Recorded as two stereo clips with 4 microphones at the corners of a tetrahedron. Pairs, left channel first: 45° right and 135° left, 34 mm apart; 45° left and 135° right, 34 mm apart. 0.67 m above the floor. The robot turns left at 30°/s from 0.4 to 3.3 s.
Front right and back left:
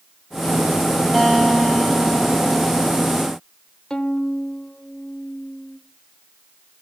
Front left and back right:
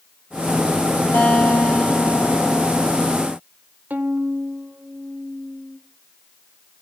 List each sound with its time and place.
1.1 s a guitar: 45° left, 6.5 m; by 3.1 s 15° right, 6.5 m
3.9 s a violin: 110° right, 1.3 m